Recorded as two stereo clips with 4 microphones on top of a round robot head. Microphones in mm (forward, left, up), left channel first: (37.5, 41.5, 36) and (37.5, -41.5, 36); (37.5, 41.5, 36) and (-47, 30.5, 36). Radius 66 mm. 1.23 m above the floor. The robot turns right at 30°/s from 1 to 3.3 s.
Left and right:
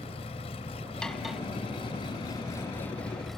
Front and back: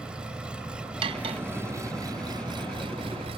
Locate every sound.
0.0 s an engine running: 110° left; by 3.4 s straight behind
1.0 s cutlery clinking: 175° left; by 1.4 s 175° right